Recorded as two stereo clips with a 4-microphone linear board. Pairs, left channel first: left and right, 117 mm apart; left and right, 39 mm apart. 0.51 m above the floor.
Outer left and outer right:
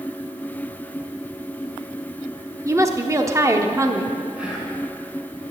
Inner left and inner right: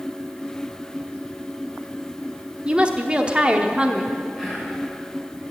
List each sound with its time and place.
2.6 s a woman speaking: 25° right (ahead or behind), 0.9 m
4.3 s whispering: 10° right (ahead or behind), 4.5 m